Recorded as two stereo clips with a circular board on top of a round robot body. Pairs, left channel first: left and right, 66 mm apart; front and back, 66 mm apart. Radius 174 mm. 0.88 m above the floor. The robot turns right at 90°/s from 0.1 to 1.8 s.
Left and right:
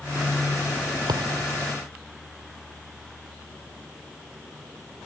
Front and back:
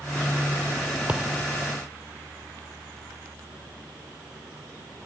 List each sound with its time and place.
1.1 s a thud: 110° right; by 1.4 s 75° right